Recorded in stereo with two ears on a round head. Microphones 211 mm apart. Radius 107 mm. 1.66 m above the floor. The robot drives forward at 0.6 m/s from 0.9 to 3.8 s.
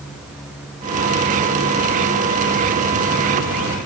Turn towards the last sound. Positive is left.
No sound to turn to.